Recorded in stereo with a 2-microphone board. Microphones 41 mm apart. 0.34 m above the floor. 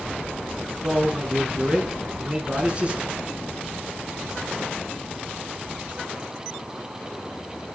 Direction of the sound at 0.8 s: 10° right (ahead or behind).